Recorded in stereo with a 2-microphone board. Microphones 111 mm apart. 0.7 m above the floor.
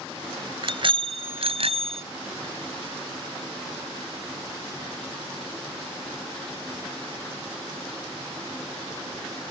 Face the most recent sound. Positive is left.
turn(degrees=-70)  # may be behind; listen again after turning